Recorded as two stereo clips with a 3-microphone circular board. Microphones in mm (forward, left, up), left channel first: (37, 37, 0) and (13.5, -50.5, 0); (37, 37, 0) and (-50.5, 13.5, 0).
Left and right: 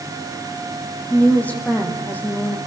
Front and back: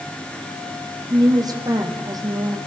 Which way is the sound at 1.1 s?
150° left.